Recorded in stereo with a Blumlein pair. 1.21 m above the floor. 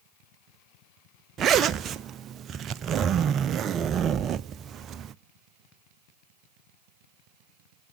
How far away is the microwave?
No microwave in this recording.